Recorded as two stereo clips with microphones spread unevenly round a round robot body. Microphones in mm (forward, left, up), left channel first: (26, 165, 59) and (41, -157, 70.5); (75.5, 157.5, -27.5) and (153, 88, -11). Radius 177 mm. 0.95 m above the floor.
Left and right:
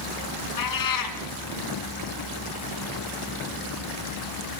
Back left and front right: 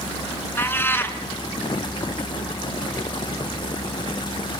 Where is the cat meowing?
65° left, 3 m.